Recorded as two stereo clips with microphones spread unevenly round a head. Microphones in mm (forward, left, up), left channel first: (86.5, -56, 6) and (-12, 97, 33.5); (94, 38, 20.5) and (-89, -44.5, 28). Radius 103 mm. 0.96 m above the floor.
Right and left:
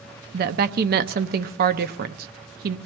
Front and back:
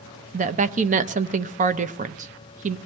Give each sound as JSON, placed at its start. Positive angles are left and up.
{"t": 0.3, "sound": "a woman speaking", "azimuth_deg": 160, "distance_m": 0.7}